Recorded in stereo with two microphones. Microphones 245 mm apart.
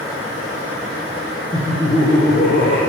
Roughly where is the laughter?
Left.